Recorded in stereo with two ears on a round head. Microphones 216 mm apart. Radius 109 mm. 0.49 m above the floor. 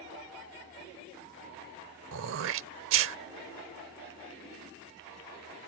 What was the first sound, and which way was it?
Throat clearing, 55° right (ahead or behind).